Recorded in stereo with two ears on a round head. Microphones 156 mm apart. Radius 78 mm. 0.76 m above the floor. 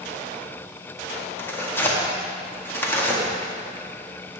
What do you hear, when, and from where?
1.4 s tearing paper: 15° left (ahead or behind), 1.7 m